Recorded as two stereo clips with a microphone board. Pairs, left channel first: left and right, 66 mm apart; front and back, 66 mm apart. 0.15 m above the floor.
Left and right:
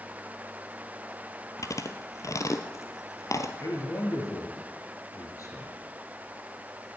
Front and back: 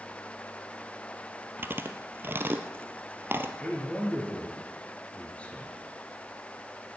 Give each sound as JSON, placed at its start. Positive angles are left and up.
{"t": 1.6, "sound": "chewing", "azimuth_deg": 125, "distance_m": 0.9}
{"t": 3.6, "sound": "a man speaking", "azimuth_deg": 65, "distance_m": 3.0}